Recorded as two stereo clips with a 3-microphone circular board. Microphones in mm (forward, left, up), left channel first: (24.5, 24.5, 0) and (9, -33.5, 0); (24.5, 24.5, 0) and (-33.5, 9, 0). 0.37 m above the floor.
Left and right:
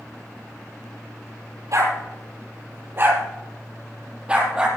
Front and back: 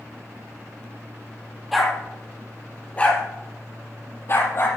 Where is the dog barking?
75° right, 3 m; by 4.7 s 25° right, 4 m.